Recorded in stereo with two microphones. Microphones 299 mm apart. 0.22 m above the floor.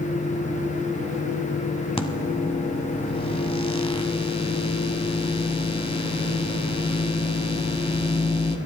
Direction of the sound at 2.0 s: 20° left (ahead or behind).